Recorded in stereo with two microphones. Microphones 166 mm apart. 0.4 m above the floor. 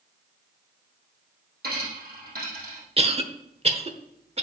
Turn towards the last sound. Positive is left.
turn(degrees=-40)  # may be behind; listen again after turning